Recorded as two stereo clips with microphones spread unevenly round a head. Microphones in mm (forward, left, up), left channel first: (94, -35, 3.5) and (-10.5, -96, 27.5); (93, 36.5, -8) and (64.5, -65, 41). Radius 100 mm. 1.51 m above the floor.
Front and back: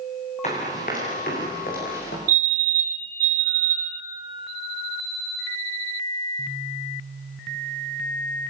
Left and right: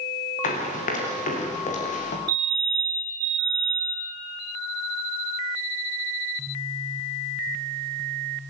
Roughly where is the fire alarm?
Behind.